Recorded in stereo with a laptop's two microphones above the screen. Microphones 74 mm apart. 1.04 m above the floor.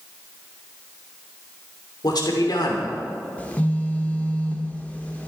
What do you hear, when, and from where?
2.0 s a man speaking: 65° left (ahead or behind), 3 m
3.4 s a phone buzzing: 20° left (ahead or behind), 1.7 m